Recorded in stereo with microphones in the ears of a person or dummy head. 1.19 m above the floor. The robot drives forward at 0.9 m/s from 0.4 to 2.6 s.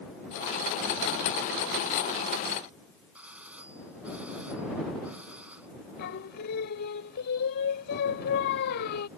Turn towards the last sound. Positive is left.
turn(degrees=55)  # may be behind; listen again after turning